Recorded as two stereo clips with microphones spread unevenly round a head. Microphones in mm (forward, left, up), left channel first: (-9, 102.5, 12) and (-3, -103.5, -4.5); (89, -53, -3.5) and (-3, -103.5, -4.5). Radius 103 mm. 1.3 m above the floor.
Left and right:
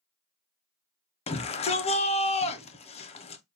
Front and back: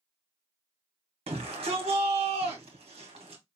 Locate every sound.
1.3 s a shout: 155° left, 0.6 m